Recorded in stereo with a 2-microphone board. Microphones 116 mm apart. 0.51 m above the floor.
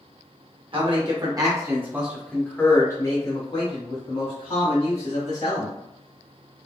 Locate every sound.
0.7 s a man speaking: 45° right (ahead or behind), 1.3 m; by 5.8 s 65° left (ahead or behind), 2.5 m